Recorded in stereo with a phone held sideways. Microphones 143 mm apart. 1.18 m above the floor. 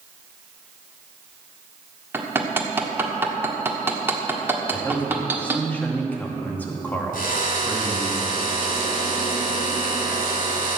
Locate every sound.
2.1 s hammering: 15° right (ahead or behind), 1.5 m
4.7 s a man speaking: 10° left (ahead or behind), 2.0 m
7.1 s a drill: 80° left, 3 m